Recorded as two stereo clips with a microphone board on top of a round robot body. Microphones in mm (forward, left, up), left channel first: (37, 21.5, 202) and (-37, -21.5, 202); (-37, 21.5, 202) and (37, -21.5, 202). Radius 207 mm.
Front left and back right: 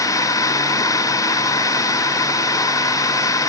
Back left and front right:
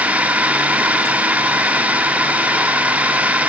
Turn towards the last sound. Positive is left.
turn(degrees=35)